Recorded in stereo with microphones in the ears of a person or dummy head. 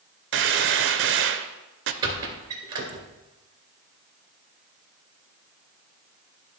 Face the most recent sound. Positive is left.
turn(degrees=-20)  # may be behind; listen again after turning